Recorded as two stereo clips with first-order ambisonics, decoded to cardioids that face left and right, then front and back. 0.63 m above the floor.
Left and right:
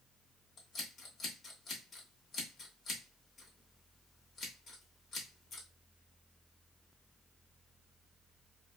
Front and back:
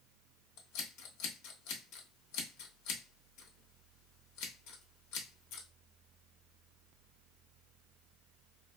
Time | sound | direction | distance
0.6 | scissors | 20° left | 0.9 m